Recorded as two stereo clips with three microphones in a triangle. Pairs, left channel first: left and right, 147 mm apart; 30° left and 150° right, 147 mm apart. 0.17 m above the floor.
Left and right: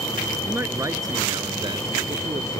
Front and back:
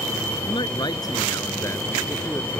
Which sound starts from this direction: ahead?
A man speaking, at 0.5 s.